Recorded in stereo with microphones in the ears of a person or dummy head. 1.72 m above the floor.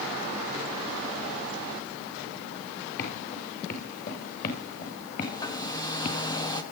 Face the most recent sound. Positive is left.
turn(degrees=20)  # may be behind; listen again after turning